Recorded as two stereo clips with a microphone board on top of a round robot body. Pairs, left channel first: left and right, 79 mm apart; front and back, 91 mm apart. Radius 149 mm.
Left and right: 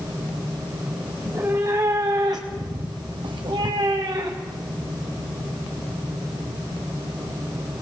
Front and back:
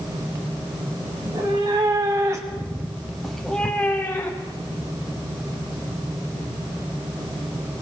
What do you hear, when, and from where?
1.2 s a cat meowing: 150° right, 2.5 m; by 4.7 s 50° right, 2 m